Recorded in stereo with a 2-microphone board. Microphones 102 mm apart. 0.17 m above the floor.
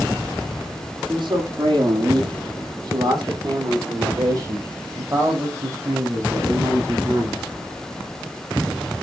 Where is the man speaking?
50° right (ahead or behind), 8 m; by 7.4 s 25° right (ahead or behind), 8 m.